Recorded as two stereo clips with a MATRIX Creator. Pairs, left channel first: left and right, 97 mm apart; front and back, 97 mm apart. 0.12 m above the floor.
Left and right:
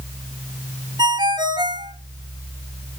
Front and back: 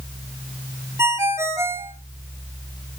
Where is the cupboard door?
I don't hear a cupboard door.